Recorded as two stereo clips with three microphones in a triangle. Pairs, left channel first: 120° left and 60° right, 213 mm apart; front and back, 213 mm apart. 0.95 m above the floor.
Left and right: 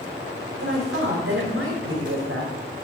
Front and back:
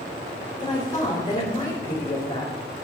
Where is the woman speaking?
70° right, 4 m.